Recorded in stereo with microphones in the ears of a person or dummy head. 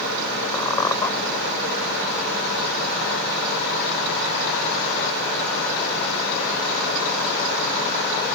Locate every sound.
0.5 s a squeak: 20° left (ahead or behind)